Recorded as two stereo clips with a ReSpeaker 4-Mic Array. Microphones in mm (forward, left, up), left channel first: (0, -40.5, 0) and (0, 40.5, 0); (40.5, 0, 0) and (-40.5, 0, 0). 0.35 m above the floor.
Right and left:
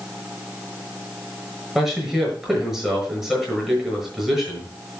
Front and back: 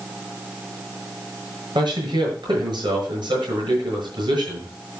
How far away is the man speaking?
About 7 m.